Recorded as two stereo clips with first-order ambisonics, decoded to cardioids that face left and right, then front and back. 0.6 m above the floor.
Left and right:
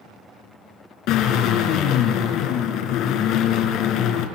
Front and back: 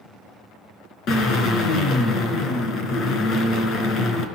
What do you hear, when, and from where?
1.1 s a drill: 55° left, 4 m